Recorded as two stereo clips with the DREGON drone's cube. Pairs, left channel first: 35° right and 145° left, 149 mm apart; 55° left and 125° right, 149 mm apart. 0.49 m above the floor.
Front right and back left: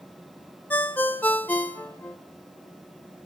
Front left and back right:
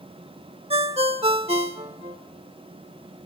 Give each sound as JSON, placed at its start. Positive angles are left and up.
{"t": 0.7, "sound": "a ringtone", "azimuth_deg": -105, "distance_m": 0.6}